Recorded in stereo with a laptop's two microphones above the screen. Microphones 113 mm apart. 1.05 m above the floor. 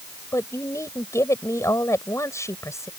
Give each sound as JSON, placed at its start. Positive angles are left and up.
{"t": 0.3, "sound": "a woman speaking", "side_deg": 25}